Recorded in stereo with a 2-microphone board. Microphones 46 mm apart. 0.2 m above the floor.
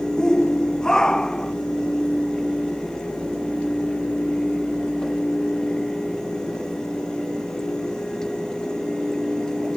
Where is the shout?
15° left (ahead or behind).